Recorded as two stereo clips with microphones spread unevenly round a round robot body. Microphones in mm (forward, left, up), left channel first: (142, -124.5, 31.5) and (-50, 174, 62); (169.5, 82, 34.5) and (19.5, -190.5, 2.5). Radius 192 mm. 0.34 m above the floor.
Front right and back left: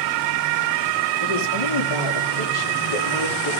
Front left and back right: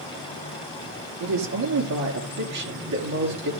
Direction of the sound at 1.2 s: 90° right.